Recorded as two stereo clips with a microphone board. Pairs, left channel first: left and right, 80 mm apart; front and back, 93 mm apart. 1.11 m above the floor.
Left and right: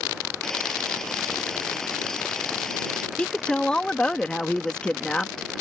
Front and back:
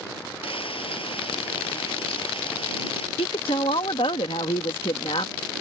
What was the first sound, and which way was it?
Frying, 5° left.